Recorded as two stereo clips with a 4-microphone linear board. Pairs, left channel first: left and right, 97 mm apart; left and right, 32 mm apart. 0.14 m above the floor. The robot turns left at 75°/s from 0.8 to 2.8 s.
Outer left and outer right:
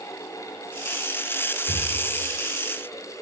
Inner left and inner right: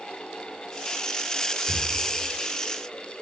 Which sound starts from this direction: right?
Breathing, at 1.7 s.